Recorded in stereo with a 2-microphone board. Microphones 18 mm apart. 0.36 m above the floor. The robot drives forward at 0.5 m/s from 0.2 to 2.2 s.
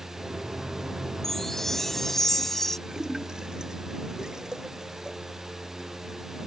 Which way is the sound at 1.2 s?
20° left (ahead or behind).